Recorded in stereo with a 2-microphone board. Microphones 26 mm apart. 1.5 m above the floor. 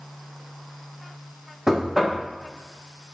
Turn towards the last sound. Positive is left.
turn(degrees=-25)  # may be behind; listen again after turning